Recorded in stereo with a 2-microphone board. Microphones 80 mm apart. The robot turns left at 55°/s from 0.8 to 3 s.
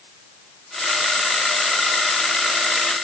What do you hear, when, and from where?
Only background noise.